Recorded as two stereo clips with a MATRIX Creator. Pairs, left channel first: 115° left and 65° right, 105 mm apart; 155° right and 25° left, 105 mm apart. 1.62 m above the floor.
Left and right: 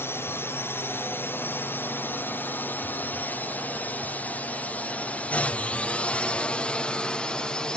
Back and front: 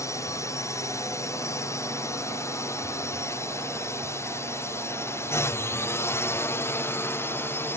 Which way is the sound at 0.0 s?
165° left.